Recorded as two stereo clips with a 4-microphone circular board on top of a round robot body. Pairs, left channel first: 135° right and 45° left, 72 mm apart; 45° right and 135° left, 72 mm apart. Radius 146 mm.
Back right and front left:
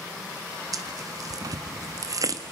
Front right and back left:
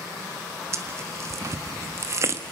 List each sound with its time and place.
0.7 s tearing paper: 85° left, 1.6 m